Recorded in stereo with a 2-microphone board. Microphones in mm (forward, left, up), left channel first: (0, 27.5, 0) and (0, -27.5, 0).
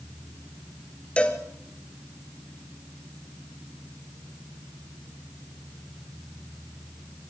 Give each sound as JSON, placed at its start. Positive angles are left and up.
{"t": 1.2, "sound": "a cowbell", "side_deg": 20, "distance_m": 2.0}